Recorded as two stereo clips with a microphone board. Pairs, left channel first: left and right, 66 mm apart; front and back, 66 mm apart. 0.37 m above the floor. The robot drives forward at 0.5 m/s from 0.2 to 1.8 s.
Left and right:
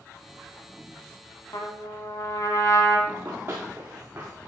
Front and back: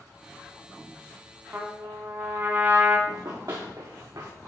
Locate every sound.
1.5 s a trumpet: 120° left, 1.1 m; by 3.0 s 125° left, 1.2 m
3.1 s running footsteps: 145° right, 1.4 m; by 4.3 s 155° right, 2.5 m